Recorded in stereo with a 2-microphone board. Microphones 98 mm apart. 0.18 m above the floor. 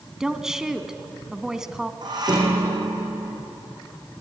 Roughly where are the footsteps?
No footsteps in this recording.